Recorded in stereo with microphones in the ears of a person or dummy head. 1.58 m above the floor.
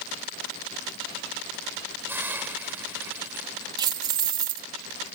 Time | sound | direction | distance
2.1 | a hiss | 20° right (ahead or behind) | ?
3.8 | keys jangling | 20° right (ahead or behind) | ?